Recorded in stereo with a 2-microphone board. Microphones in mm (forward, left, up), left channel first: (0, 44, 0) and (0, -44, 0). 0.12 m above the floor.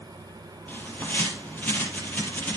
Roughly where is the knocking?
I don't hear knocking.